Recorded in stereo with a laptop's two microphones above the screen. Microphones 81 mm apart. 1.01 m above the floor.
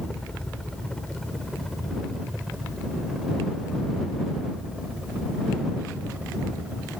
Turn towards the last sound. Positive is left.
turn(degrees=-15)  # may be behind; listen again after turning